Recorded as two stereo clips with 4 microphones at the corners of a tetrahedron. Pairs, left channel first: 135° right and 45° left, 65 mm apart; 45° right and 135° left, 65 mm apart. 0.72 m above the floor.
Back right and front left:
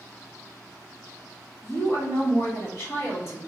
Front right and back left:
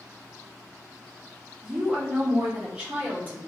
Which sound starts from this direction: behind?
A woman speaking, at 1.6 s.